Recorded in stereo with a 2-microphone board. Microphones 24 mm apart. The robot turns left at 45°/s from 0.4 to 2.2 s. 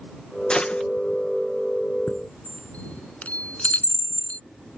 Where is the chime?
60° left (ahead or behind); by 4.4 s 65° left (ahead or behind).